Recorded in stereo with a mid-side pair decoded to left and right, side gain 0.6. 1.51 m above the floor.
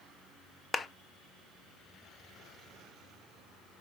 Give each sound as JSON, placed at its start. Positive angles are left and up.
{"t": 0.7, "sound": "a clap", "azimuth_deg": 25, "distance_m": 0.9}